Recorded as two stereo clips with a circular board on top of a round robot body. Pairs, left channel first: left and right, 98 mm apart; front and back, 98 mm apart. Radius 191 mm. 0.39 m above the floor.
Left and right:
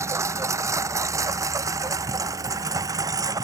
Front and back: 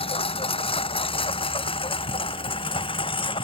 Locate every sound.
0.0 s a lawn mower: 30° right; by 3.5 s 35° right